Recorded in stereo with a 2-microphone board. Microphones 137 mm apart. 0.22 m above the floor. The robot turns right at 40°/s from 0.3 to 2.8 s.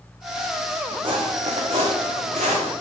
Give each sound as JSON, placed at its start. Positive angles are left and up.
{"t": 1.0, "sound": "footsteps", "side_deg": -40, "distance_m": 0.8}